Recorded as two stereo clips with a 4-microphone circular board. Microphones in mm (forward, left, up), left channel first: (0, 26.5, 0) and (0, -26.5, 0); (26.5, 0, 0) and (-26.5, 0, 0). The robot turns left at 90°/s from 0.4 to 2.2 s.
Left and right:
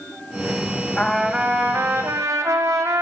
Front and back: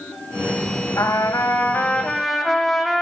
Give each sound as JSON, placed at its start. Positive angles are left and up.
{"t": 1.0, "sound": "a trumpet", "azimuth_deg": 20, "distance_m": 1.4}